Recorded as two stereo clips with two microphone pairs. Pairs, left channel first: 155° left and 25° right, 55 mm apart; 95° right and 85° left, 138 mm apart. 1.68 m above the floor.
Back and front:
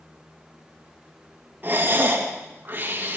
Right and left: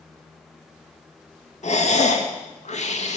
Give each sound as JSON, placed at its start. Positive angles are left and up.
{"t": 1.6, "sound": "breathing", "azimuth_deg": -70, "distance_m": 1.6}